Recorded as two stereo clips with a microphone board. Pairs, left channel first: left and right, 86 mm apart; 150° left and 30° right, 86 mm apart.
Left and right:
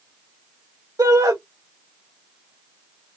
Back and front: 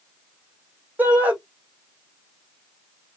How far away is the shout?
About 1.4 m.